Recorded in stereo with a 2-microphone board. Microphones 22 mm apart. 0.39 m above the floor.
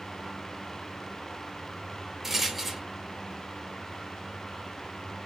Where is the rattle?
10° right (ahead or behind), 0.6 m.